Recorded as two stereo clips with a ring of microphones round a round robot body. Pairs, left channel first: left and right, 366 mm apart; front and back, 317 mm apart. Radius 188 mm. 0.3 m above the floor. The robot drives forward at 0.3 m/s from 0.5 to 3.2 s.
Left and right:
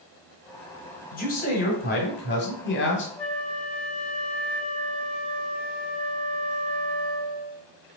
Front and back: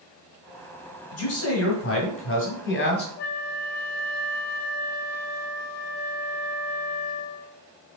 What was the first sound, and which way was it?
A man speaking, 30° left.